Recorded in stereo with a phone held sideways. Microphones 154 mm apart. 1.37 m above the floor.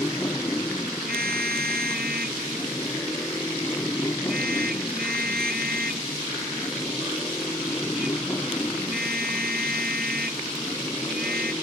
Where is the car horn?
80° right.